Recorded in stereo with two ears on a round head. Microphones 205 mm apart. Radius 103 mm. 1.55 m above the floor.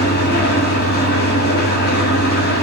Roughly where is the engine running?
Left.